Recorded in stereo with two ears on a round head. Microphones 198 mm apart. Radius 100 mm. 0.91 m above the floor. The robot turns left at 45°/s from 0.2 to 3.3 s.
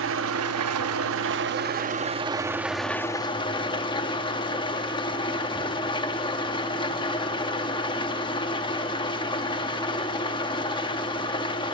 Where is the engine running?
65° right, 0.8 m; by 11.8 s 155° left, 0.8 m.